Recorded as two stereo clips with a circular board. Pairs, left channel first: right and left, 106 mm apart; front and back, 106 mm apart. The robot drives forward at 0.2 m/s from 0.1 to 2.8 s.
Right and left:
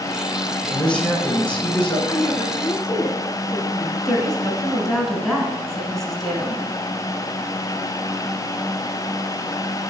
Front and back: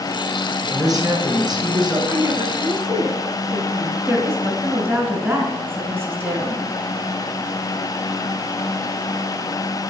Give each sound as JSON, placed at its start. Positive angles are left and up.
{"t": 0.7, "sound": "a man speaking", "azimuth_deg": -165, "distance_m": 2.0}
{"t": 2.1, "sound": "a woman speaking", "azimuth_deg": -145, "distance_m": 1.6}
{"t": 4.0, "sound": "a woman speaking", "azimuth_deg": -175, "distance_m": 1.5}